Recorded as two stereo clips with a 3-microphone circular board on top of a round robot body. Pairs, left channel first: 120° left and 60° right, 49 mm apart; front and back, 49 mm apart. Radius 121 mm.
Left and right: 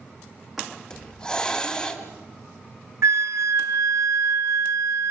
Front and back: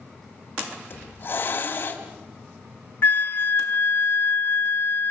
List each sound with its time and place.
0.9 s a hiss: 45° left, 2.5 m
3.0 s a flute: 45° right, 0.7 m